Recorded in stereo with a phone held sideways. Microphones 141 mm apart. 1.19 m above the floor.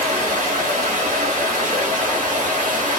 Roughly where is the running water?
Right.